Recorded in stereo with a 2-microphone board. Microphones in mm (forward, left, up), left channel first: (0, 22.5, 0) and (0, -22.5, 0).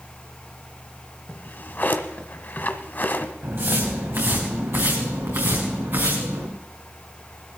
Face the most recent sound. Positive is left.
turn(degrees=-70)  # may be behind; listen again after turning